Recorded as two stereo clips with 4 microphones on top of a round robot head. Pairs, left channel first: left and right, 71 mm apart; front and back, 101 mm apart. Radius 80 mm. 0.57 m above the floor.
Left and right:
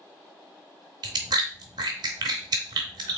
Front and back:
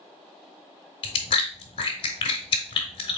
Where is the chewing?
45° right, 0.6 m.